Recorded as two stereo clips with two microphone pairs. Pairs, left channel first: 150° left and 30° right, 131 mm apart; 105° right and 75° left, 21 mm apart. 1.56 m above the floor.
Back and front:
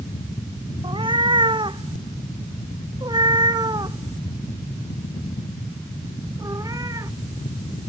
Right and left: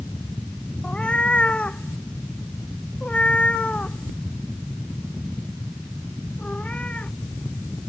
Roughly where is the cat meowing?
Right.